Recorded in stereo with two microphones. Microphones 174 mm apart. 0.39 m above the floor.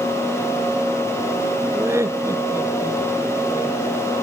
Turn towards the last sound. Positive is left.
turn(degrees=-15)  # may be behind; listen again after turning